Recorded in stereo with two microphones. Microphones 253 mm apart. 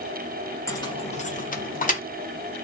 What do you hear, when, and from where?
0.7 s keys jangling: 15° left (ahead or behind), 0.7 m; by 2.0 s 35° left (ahead or behind), 0.9 m